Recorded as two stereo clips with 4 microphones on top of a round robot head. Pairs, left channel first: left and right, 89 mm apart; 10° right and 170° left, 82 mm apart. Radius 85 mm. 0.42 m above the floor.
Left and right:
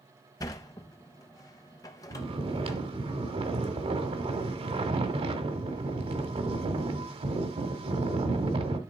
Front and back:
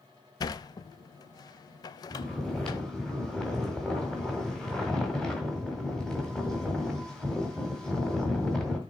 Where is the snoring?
95° right, 1.4 m.